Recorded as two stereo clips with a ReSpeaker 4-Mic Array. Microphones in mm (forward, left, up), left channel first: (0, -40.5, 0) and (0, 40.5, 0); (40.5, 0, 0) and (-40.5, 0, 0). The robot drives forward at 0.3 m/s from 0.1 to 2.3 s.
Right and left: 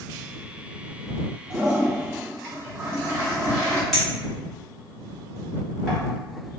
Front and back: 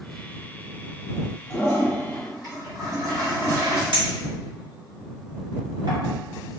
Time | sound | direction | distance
1.5 | a toilet flushing | 145° left | 1.6 m
3.9 | a clink | straight behind | 1.3 m